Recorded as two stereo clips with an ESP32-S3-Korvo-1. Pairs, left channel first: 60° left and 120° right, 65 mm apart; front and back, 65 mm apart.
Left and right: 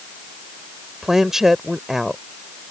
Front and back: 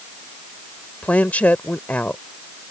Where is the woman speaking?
40° right.